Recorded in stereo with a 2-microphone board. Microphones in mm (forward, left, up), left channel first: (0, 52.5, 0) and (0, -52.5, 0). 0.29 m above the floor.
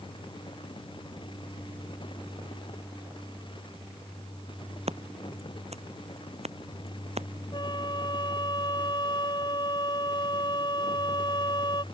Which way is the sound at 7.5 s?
45° left (ahead or behind).